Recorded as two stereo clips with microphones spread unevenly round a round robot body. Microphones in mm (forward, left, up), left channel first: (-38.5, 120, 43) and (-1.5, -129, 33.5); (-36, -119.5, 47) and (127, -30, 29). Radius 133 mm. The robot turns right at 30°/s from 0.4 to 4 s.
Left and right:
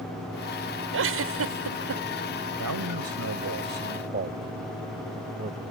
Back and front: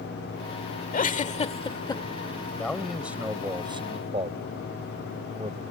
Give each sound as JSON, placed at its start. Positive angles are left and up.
{"t": 0.9, "sound": "a giggle", "azimuth_deg": -110}
{"t": 2.6, "sound": "a man speaking", "azimuth_deg": -70}